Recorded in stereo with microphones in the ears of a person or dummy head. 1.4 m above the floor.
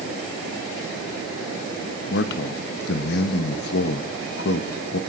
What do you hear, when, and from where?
2.1 s a man speaking: 60° left (ahead or behind), 0.8 m